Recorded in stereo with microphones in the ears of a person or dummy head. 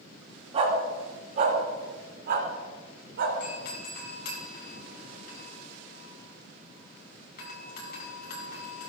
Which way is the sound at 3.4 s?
55° left (ahead or behind).